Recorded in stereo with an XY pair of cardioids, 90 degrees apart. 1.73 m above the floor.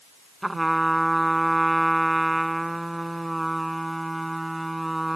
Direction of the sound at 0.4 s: 10° right.